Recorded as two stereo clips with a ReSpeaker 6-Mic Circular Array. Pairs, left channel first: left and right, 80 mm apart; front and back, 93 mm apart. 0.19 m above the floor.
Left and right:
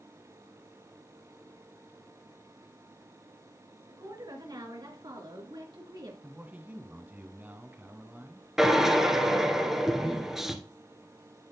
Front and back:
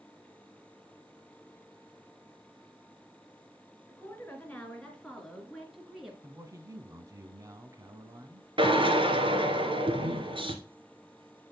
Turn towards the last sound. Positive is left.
turn(degrees=-175)